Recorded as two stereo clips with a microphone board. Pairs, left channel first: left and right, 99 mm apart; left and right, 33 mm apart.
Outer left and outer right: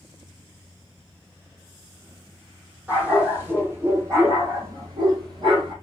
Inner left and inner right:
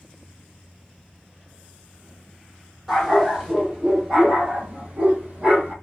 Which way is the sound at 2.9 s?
15° right (ahead or behind).